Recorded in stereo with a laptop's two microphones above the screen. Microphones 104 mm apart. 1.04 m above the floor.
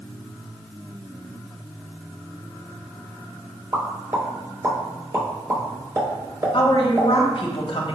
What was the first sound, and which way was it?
A pop, 30° right (ahead or behind).